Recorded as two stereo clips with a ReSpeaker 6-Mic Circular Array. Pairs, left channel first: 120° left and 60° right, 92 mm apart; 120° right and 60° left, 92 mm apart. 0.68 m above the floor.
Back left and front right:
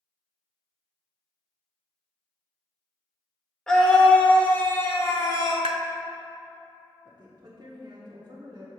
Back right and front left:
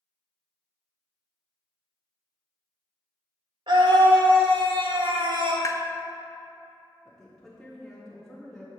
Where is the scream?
35° left, 2.0 m; by 5.5 s 75° left, 1.8 m.